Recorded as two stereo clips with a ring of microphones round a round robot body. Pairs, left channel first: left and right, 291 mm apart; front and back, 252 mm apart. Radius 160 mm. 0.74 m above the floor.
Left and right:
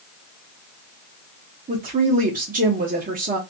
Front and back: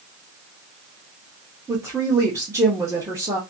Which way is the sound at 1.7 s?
115° right.